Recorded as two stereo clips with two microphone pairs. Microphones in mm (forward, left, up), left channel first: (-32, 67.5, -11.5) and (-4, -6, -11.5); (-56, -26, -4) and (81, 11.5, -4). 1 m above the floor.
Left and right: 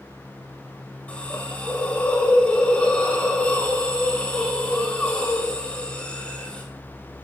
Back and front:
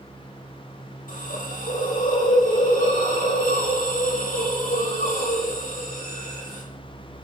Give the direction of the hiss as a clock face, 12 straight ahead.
6 o'clock.